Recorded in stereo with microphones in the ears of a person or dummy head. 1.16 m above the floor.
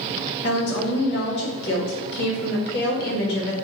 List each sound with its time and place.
0.4 s a woman speaking: 65° left (ahead or behind), 1.4 m